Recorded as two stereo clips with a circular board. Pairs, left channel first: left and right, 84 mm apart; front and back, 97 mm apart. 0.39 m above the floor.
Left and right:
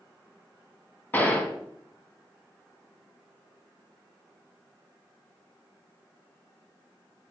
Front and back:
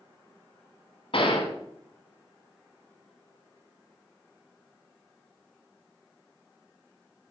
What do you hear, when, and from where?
1.1 s a gunshot: 20° left, 1.6 m